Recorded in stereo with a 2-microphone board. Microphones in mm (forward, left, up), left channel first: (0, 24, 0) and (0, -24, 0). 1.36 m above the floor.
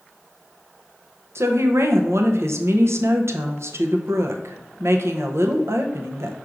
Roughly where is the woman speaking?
Right.